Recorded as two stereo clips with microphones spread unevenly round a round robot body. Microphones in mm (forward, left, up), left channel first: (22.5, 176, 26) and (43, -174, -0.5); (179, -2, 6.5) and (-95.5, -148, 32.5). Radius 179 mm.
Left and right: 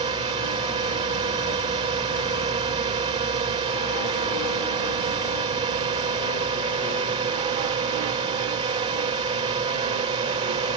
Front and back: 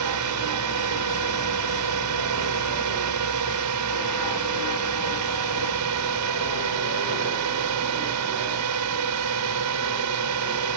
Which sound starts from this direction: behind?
A drone, at 0.0 s.